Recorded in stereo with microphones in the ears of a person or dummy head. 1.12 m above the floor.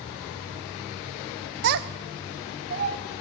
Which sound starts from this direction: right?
A child speaking, at 1.6 s.